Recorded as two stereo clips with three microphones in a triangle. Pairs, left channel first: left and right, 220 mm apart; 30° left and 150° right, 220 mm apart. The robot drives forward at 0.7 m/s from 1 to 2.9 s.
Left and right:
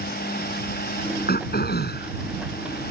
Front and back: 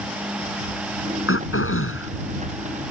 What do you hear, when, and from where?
1.3 s throat clearing: 45° left; by 2.1 s 50° left